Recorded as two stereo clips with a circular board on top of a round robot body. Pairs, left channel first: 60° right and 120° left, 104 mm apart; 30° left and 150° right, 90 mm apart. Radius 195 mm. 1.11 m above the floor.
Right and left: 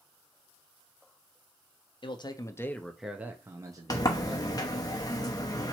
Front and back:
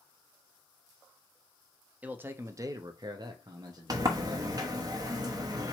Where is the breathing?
I don't hear breathing.